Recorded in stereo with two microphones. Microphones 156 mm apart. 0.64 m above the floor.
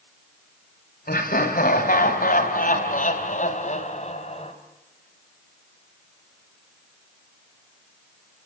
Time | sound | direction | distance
1.1 | laughter | 75° left (ahead or behind) | 4 m